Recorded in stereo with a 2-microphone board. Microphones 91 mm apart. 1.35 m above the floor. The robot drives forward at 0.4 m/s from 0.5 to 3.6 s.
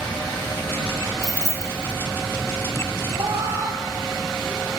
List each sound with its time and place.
1.2 s keys jangling: 30° left (ahead or behind), 0.8 m; by 1.9 s 25° left (ahead or behind), 1.1 m
3.1 s a cat meowing: 35° right (ahead or behind), 2 m; by 4.8 s 30° right (ahead or behind), 2 m